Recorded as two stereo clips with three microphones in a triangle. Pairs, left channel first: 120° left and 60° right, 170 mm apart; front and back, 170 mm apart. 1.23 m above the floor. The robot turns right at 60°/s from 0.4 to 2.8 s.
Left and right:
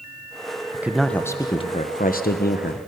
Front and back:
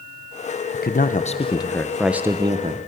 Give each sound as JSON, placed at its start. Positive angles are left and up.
{"t": 0.7, "sound": "a man speaking", "azimuth_deg": 15, "distance_m": 0.9}